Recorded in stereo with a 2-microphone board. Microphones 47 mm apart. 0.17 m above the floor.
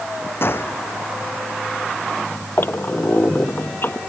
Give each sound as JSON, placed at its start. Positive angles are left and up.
{"t": 0.4, "sound": "a gunshot", "side_deg": 55}
{"t": 2.6, "sound": "a squeak", "side_deg": 50}